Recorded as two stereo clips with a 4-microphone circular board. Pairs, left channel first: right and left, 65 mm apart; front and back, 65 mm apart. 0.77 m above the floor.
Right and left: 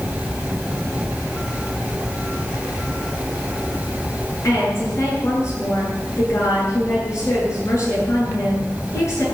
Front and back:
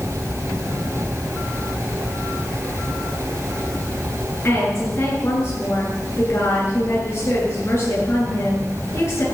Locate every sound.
4.4 s a woman speaking: 50° right, 10 m